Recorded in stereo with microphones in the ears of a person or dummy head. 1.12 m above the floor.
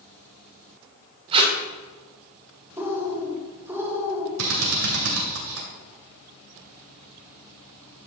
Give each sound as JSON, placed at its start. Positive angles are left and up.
{"t": 1.3, "sound": "tape being pulled", "side_deg": -30, "distance_m": 1.7}
{"t": 2.8, "sound": "a bird", "side_deg": -15, "distance_m": 2.5}
{"t": 4.4, "sound": "a drill", "side_deg": -75, "distance_m": 2.0}